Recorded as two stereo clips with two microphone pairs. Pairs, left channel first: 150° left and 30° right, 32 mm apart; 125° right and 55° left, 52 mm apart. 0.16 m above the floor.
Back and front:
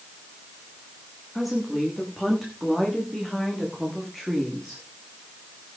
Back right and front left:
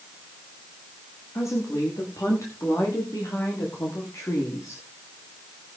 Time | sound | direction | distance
1.4 | a woman speaking | 115° right | 10 m